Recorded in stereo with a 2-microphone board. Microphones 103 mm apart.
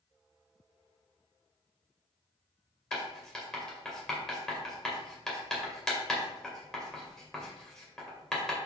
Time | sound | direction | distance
2.9 | writing | 5° left (ahead or behind) | 2 m